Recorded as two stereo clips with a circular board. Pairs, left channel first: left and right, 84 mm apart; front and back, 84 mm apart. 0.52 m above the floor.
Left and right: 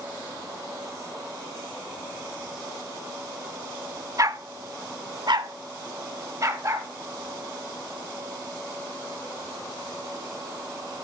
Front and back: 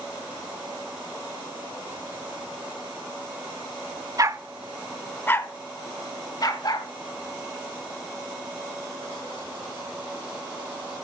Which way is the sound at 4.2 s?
135° right.